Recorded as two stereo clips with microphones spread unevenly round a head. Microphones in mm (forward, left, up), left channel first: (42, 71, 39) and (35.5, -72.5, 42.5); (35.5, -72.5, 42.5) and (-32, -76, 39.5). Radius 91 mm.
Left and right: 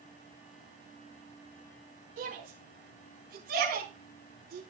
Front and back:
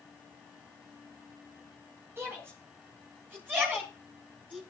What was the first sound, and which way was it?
A shout, 125° right.